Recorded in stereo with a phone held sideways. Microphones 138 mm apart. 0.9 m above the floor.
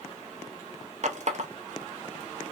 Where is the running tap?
55° right (ahead or behind), 0.5 m.